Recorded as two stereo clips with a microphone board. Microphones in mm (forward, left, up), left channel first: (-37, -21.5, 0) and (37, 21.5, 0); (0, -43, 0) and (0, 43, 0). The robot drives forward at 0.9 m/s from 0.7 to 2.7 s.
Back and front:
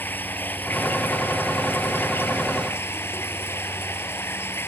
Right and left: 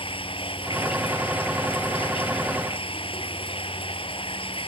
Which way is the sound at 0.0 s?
80° right.